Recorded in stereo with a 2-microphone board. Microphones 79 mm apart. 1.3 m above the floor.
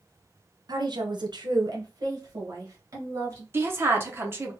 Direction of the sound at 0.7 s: 60° right (ahead or behind).